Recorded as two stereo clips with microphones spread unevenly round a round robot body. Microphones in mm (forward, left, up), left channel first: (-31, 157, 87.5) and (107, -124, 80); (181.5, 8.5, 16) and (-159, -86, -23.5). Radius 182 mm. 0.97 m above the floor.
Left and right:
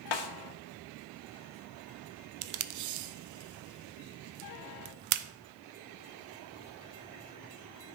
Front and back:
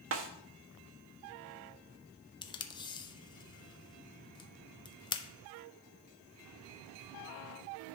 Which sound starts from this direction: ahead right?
Tape being pulled, at 2.4 s.